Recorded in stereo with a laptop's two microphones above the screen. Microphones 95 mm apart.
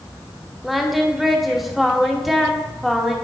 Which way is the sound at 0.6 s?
Centre (ahead or behind).